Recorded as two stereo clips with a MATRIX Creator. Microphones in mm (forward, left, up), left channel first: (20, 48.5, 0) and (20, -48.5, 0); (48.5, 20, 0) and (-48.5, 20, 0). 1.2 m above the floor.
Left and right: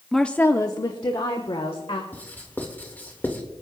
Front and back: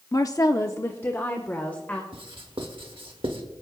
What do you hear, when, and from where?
0.1 s a woman speaking: straight ahead, 0.6 m; by 2.0 s 75° left, 1.7 m
2.1 s writing: 160° left, 1.6 m